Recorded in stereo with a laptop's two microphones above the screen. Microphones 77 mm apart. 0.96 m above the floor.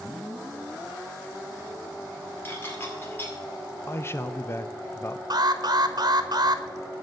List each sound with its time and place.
2.5 s dishes clattering: 30° left (ahead or behind), 2 m
3.9 s a man speaking: 30° left (ahead or behind), 0.5 m
5.3 s an alarm: 55° right (ahead or behind), 1.1 m